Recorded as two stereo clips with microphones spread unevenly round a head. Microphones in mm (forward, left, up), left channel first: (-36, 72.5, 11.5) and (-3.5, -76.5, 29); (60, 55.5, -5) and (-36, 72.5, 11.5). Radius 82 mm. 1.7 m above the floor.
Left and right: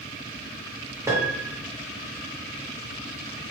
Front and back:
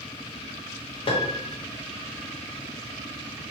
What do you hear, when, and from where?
1.1 s a piano: 15° right, 0.7 m